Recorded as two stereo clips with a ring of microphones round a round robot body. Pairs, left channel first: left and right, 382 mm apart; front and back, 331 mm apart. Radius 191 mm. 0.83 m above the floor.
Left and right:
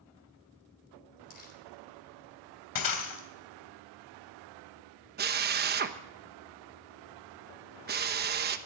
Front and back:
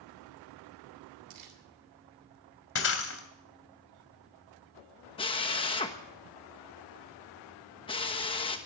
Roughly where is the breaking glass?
Ahead left.